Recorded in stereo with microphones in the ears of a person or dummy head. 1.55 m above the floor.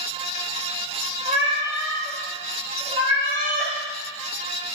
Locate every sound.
1.2 s a cat meowing: 30° right (ahead or behind), 1.8 m